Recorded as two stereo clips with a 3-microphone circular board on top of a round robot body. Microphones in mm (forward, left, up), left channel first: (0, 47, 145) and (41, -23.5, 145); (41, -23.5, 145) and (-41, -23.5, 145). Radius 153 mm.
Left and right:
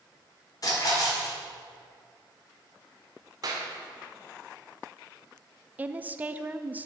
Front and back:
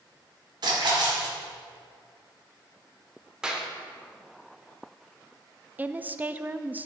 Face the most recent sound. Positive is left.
turn(degrees=-120)